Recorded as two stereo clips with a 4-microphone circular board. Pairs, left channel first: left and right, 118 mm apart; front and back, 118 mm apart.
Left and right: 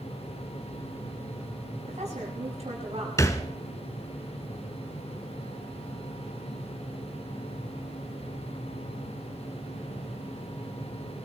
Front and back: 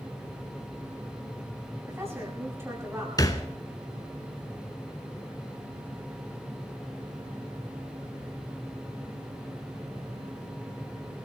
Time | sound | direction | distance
1.9 | a woman speaking | 110° right | 8 m
3.2 | a thud | 40° left | 1.4 m